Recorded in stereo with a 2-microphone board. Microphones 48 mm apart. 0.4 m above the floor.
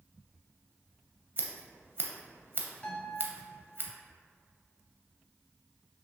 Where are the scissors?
45° right (ahead or behind), 0.6 m.